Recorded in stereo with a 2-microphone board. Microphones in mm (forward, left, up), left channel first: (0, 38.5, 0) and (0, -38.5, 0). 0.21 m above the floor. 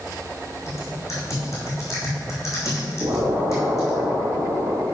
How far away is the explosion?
About 2.5 m.